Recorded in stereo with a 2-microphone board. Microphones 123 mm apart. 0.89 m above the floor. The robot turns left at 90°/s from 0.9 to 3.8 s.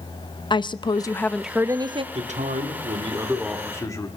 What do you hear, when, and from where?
0.5 s a woman speaking: 45° left, 0.6 m; by 2.0 s 60° right, 0.6 m
2.1 s a man speaking: 60° right, 2.0 m; by 4.1 s 155° left, 2.0 m